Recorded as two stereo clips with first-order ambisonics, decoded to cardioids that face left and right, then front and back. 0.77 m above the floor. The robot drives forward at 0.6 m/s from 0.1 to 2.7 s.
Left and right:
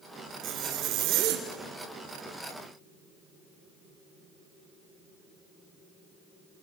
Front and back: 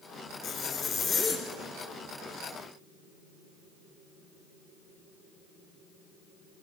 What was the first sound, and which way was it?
A zipper, 60° right.